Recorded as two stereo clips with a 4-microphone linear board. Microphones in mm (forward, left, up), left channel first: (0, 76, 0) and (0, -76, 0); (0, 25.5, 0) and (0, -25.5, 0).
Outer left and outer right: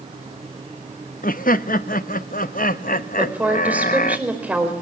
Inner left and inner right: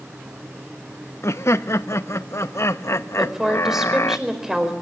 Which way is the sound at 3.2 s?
10° right (ahead or behind).